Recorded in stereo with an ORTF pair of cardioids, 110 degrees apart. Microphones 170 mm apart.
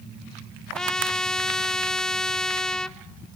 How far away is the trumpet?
About 0.8 m.